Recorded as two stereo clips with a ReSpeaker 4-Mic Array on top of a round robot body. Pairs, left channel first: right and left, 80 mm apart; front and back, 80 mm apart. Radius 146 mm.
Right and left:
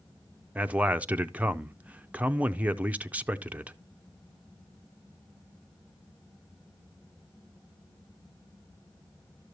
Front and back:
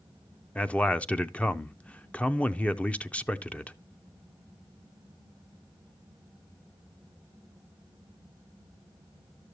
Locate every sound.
0.6 s a man speaking: 50° left, 0.7 m